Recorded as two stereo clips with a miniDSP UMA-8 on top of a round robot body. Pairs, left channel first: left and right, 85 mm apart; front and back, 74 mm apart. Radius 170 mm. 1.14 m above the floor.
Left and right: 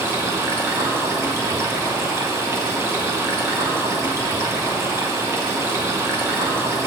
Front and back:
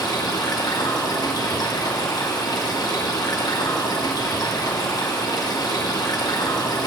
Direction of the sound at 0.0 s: 30° right.